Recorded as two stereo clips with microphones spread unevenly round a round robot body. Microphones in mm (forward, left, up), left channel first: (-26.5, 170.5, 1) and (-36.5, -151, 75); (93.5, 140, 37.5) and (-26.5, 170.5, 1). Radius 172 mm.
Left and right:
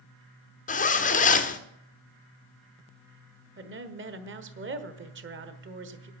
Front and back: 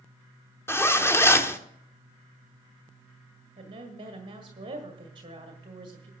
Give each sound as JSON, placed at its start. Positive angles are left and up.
{"t": 0.7, "sound": "a zipper", "azimuth_deg": 70, "distance_m": 1.2}
{"t": 3.6, "sound": "a woman speaking", "azimuth_deg": -150, "distance_m": 1.4}